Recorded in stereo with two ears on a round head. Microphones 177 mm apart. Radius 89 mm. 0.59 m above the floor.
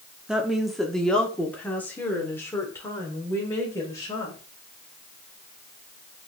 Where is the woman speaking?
5° right (ahead or behind), 1.1 m; by 4.4 s 15° left (ahead or behind), 3 m.